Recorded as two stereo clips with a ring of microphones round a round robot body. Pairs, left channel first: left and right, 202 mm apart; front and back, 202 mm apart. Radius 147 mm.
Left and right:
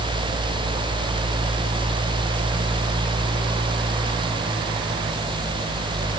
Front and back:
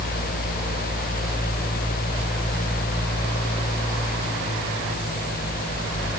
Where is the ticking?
No ticking in this recording.